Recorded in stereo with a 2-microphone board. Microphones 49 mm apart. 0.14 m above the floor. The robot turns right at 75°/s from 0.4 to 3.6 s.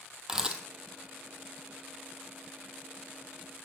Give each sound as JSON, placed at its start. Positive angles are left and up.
{"t": 0.3, "sound": "a camera shutter", "side_deg": -10, "distance_m": 0.9}